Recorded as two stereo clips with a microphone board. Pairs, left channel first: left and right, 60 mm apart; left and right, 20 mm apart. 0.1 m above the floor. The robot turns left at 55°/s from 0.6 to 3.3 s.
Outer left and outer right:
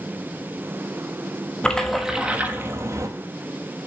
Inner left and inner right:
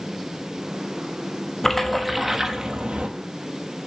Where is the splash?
15° left, 1.1 m; by 3.1 s 65° right, 1.1 m.